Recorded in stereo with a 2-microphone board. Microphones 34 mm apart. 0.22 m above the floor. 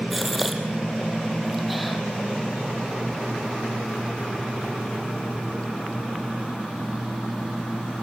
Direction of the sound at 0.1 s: Centre (ahead or behind).